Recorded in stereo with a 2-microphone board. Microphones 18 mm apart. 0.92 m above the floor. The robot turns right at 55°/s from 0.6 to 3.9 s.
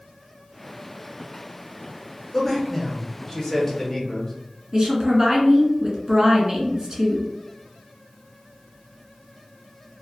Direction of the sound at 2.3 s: 5° left (ahead or behind).